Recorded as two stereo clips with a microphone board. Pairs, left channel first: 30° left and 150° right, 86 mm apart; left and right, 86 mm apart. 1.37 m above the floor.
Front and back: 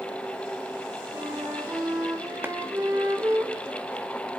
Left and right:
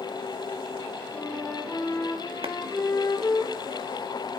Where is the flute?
145° left, 4.5 m.